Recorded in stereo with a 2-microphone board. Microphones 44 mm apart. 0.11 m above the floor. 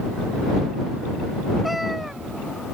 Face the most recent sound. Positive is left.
turn(degrees=-5)  # may be behind; listen again after turning